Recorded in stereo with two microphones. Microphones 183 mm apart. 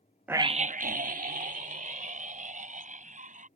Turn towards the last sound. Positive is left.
turn(degrees=-40)  # may be behind; listen again after turning